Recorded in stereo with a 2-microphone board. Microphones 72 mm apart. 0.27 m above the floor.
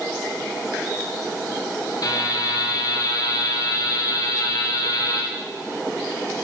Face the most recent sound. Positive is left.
turn(degrees=55)  # may be behind; listen again after turning